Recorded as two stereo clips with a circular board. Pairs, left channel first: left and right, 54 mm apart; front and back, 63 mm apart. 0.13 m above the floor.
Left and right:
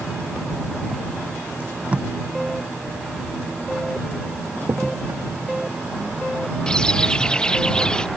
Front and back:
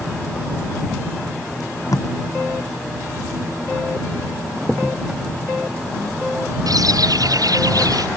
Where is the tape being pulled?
20° right.